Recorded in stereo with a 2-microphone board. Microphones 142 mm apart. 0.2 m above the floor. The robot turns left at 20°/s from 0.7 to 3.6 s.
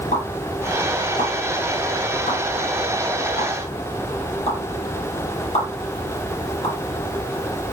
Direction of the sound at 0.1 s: 60° left (ahead or behind).